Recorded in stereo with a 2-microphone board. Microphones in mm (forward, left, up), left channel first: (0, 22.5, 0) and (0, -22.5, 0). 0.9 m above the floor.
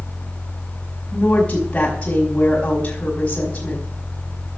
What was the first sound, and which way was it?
A woman speaking, 30° left (ahead or behind).